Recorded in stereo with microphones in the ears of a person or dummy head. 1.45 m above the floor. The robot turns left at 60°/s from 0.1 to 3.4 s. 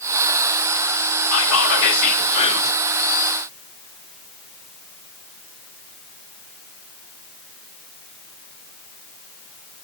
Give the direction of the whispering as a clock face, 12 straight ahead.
9 o'clock.